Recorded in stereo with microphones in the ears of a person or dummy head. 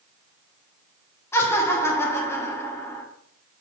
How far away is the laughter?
About 0.7 m.